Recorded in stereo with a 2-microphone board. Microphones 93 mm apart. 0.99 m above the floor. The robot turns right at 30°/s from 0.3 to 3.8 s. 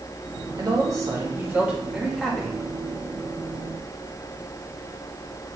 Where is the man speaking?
50° right, 1.9 m; by 2.6 s 15° left, 1.9 m.